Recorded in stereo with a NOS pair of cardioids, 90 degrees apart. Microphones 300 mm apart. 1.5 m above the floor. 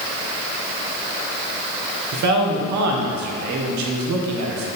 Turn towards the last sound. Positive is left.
turn(degrees=-70)